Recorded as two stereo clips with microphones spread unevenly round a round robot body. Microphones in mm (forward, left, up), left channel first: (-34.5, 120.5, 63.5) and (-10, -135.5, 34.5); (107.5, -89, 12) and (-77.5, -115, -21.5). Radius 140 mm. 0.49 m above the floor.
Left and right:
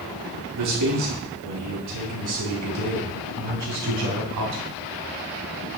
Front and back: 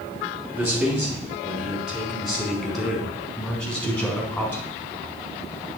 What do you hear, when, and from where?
0.6 s a man speaking: 90° right, 6 m; by 4.7 s 70° right, 5 m